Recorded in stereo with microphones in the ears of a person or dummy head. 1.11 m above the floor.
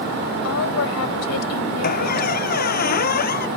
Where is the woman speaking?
75° left (ahead or behind).